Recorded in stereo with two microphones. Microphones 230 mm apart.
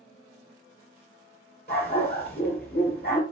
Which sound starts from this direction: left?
A dog barking, at 1.7 s.